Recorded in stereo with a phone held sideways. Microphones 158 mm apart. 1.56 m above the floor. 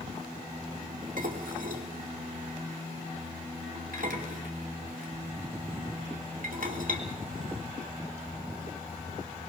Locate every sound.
1.2 s dishes clattering: 65° right (ahead or behind), 3 m